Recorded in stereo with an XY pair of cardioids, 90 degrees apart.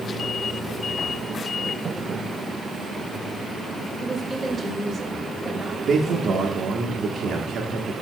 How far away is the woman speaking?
About 1.8 m.